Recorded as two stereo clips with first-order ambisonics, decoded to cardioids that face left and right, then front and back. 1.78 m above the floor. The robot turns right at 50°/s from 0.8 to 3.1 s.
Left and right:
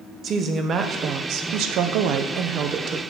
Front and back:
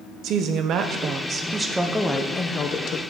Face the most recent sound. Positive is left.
turn(degrees=-30)